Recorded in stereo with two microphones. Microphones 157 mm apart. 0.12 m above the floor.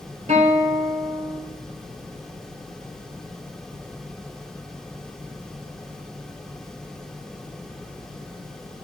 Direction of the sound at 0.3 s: 50° right (ahead or behind).